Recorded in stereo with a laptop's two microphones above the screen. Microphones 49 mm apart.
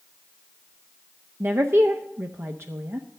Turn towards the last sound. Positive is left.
turn(degrees=-50)  # may be behind; listen again after turning